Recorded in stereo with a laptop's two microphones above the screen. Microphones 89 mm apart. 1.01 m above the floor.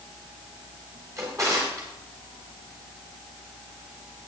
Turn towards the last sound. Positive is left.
turn(degrees=-40)  # may be behind; listen again after turning